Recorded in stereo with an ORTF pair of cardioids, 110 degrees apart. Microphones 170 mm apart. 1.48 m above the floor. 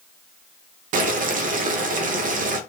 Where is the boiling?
50° right, 0.6 m.